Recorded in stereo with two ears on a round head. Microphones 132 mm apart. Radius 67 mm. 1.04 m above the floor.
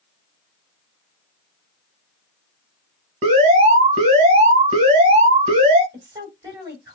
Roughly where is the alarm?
Right.